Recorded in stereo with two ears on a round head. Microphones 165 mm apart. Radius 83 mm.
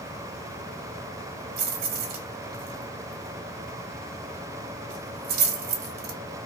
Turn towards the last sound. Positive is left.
turn(degrees=-60)  # may be behind; listen again after turning